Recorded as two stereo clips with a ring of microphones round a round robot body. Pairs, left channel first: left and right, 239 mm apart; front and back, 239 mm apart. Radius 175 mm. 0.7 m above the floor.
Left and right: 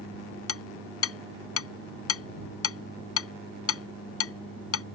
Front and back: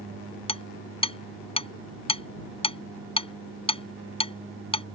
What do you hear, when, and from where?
0.5 s hammering: 65° left